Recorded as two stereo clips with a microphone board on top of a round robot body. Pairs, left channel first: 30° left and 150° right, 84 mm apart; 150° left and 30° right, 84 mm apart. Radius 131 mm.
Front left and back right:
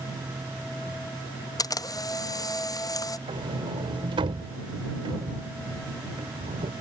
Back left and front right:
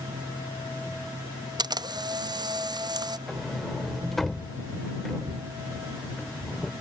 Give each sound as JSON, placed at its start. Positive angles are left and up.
{"t": 1.6, "sound": "a camera shutter", "azimuth_deg": -5}
{"t": 3.3, "sound": "a sliding door", "azimuth_deg": -125}